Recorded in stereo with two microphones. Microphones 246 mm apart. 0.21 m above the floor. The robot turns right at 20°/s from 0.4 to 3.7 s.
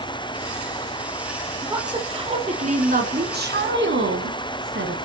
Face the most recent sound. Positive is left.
turn(degrees=-125)